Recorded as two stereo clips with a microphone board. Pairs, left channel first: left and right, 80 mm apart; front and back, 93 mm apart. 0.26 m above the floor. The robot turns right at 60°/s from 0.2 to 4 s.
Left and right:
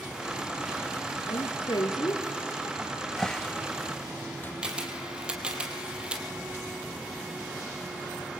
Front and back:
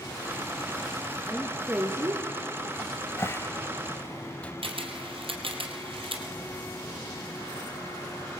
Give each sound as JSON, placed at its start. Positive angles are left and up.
{"t": 1.3, "sound": "a woman speaking", "azimuth_deg": 80, "distance_m": 4.0}
{"t": 2.8, "sound": "a cupboard door", "azimuth_deg": -10, "distance_m": 0.7}
{"t": 4.6, "sound": "a camera shutter", "azimuth_deg": -165, "distance_m": 4.0}